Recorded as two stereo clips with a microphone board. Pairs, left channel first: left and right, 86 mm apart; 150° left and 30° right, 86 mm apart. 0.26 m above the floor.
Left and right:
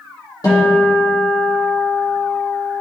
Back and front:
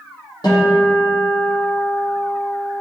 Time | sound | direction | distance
0.4 | a guitar | 125° left | 2.5 m